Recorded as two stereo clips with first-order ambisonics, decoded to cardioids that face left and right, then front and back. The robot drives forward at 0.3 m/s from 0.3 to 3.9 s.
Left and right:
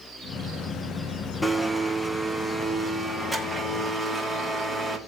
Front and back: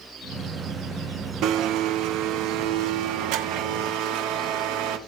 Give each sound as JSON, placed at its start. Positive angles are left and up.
{"t": 1.4, "sound": "a blender", "azimuth_deg": 175, "distance_m": 0.9}